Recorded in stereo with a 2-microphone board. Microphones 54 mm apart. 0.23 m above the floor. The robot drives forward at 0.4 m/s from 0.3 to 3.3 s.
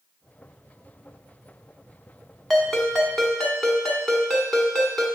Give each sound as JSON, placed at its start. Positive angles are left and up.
{"t": 2.5, "sound": "a ringtone", "side_deg": 0, "distance_m": 1.1}